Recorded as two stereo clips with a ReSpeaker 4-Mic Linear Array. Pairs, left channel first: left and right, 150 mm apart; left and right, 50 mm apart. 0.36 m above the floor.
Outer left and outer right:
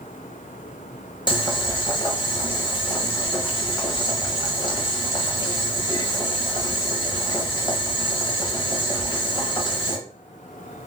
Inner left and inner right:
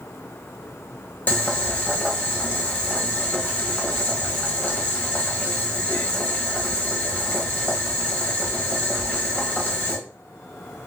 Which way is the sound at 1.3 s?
30° left (ahead or behind).